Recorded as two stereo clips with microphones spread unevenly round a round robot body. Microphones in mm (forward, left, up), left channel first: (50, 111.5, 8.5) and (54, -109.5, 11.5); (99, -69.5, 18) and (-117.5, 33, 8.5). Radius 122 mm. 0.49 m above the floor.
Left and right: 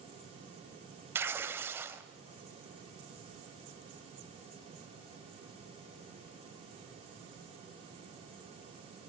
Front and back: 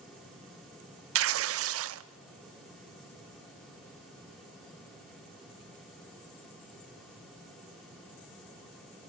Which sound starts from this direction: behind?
Tearing paper, at 1.1 s.